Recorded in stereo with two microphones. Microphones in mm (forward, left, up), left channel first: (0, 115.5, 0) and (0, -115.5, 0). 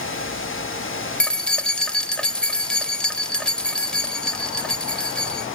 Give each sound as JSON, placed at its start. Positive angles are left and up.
{"t": 1.2, "sound": "keys jangling", "side_deg": 5, "distance_m": 0.6}